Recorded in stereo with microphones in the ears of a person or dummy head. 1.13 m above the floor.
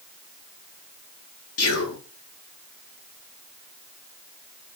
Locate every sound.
1.6 s whispering: 75° left (ahead or behind), 1.0 m